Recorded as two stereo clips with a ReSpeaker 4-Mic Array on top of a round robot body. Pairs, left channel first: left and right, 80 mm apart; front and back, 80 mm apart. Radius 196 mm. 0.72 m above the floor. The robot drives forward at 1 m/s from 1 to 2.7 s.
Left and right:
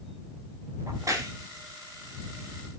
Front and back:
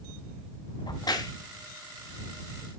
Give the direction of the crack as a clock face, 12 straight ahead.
1 o'clock.